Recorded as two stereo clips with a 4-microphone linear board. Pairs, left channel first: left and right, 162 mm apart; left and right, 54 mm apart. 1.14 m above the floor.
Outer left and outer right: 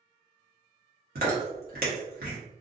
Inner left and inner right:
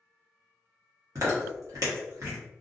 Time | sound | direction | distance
1.1 | chewing | 75° right (ahead or behind) | 1.1 m